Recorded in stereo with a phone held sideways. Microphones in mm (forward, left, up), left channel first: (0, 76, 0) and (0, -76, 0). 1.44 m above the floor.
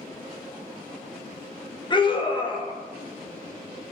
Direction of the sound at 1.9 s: 30° left (ahead or behind).